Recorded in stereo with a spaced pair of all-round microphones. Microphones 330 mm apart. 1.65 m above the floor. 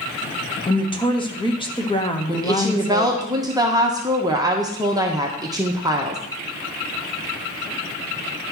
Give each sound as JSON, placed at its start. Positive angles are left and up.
{"t": 0.7, "sound": "a woman speaking", "side_deg": 15, "distance_m": 1.1}
{"t": 2.3, "sound": "a woman speaking", "side_deg": -10, "distance_m": 1.1}